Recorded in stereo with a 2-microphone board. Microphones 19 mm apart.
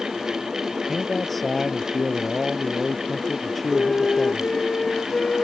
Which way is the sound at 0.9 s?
Centre (ahead or behind).